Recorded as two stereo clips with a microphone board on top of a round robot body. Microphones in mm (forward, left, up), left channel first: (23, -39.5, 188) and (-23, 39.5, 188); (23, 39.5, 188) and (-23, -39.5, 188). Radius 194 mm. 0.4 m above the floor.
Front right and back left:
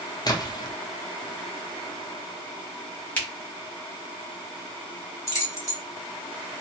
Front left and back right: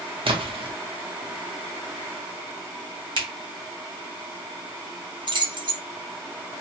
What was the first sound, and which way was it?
A splash, 105° right.